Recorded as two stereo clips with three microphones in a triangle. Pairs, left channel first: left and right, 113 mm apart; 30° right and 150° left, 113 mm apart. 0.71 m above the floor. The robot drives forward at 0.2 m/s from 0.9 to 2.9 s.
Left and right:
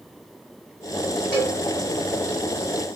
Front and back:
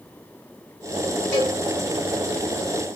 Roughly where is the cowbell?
Ahead left.